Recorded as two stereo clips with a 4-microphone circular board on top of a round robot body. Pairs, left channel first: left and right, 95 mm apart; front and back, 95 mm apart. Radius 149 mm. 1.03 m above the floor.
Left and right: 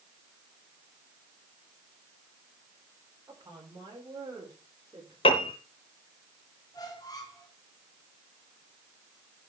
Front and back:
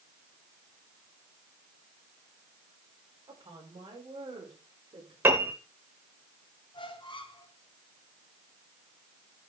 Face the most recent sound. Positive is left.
turn(degrees=40)